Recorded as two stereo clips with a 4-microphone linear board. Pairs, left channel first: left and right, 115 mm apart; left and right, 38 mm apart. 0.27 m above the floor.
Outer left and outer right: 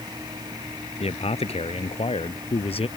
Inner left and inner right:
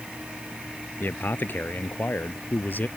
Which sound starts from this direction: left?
A man speaking, at 1.0 s.